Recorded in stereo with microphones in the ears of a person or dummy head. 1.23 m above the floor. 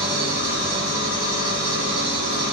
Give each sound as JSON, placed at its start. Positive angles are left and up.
{"t": 0.0, "sound": "an engine running", "side_deg": -50, "distance_m": 1.5}